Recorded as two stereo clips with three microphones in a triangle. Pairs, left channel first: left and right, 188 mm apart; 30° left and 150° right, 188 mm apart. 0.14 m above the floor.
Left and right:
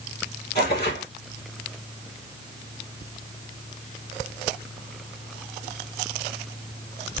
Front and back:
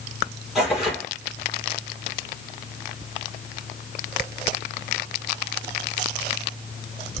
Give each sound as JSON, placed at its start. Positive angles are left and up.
{"t": 0.6, "sound": "tearing paper", "azimuth_deg": 120, "distance_m": 2.5}